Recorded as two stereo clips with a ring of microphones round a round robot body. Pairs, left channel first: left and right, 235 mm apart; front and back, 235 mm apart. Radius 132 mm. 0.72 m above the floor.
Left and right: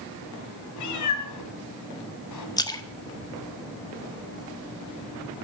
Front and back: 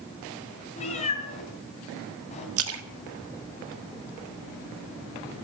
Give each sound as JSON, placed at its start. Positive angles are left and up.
{"t": 0.8, "sound": "a cat meowing", "azimuth_deg": 70, "distance_m": 2.5}
{"t": 2.6, "sound": "a splash", "azimuth_deg": 165, "distance_m": 1.5}